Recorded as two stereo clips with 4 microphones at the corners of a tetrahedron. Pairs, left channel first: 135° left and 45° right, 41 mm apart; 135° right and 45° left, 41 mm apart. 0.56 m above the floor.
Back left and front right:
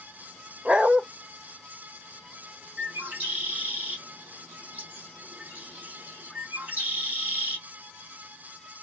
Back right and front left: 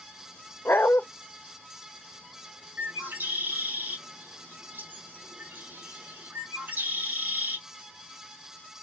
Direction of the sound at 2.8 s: 5° left.